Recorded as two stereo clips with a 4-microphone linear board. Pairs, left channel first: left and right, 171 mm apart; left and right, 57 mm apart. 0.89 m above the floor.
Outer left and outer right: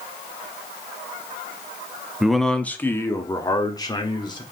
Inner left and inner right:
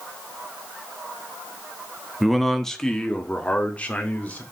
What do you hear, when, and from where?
2.2 s a man speaking: 5° right (ahead or behind), 0.9 m; by 4.4 s 25° left (ahead or behind), 2.5 m